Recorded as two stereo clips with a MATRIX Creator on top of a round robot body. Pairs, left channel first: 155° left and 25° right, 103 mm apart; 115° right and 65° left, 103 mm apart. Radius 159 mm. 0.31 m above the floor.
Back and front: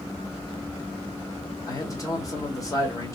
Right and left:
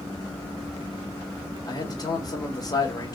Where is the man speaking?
155° right, 1.6 m.